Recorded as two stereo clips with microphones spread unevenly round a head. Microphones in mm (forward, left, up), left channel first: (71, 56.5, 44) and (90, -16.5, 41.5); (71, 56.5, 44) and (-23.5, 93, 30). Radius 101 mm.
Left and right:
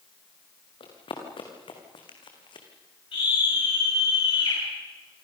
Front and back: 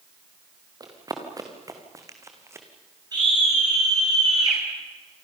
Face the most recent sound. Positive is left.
turn(degrees=110)